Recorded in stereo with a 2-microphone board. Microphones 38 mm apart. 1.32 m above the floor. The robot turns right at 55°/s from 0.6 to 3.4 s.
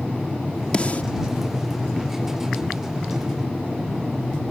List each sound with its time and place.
0.7 s a snare drum: 25° left (ahead or behind); by 1.0 s 45° left (ahead or behind)